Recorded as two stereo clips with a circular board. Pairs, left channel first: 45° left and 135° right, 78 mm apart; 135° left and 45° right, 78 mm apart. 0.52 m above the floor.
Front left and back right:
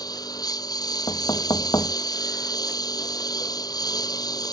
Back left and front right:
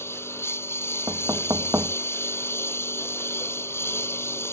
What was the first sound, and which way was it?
A lawn mower, 80° left.